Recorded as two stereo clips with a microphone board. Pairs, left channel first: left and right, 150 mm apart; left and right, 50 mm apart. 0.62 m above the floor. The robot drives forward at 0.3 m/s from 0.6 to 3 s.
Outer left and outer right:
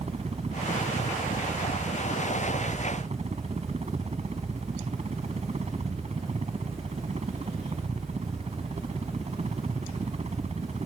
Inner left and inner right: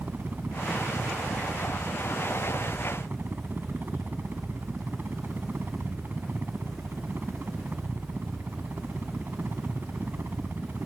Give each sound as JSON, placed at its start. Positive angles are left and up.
{"t": 0.0, "sound": "a helicopter", "side_deg": -45}